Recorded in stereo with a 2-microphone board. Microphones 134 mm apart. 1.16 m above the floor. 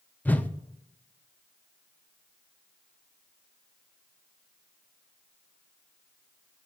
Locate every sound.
0.2 s a whoosh: 10° left (ahead or behind), 0.6 m